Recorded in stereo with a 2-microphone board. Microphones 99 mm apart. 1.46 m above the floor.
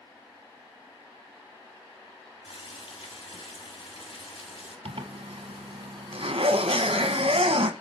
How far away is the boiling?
About 5.5 m.